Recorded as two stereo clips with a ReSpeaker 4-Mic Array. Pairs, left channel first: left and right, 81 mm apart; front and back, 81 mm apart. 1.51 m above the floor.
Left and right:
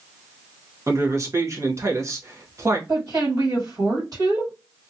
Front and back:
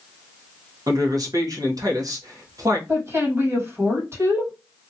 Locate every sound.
0.9 s a man speaking: 140° right, 1.0 m
2.9 s a woman speaking: 125° right, 1.9 m